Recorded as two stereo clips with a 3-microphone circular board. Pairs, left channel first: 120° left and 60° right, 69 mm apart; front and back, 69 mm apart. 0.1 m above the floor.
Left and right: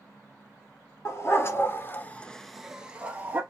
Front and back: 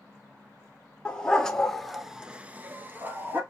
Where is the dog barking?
75° left, 1.1 m; by 3.4 s 125° right, 1.0 m.